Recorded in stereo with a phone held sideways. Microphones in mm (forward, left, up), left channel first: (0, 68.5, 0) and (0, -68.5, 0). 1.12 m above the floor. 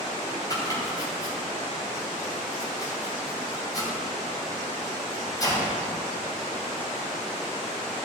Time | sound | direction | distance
0.5 | chopping | 30° left (ahead or behind) | 3 m